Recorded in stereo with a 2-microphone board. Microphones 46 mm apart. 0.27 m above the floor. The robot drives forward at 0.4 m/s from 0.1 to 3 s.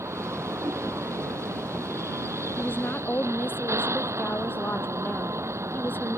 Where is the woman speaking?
45° left (ahead or behind); by 6.2 s 40° left (ahead or behind).